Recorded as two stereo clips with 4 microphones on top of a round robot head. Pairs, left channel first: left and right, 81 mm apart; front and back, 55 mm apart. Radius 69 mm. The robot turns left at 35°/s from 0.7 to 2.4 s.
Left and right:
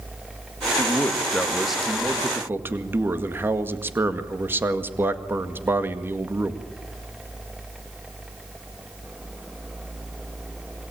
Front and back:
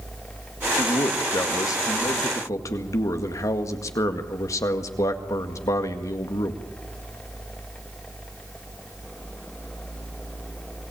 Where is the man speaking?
30° left, 1.9 m; by 6.6 s 25° right, 1.9 m.